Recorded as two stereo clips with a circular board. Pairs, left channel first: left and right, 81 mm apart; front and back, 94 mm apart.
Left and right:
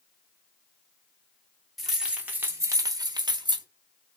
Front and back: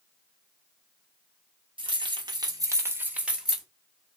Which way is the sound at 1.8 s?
Straight behind.